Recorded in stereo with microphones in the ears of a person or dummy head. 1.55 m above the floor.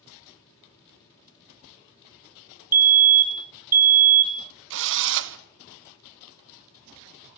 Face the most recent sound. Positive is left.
turn(degrees=-60)  # may be behind; listen again after turning